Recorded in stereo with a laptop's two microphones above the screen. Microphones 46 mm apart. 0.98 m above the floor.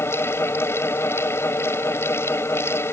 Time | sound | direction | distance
0.0 | a fan | 75° left (ahead or behind) | ?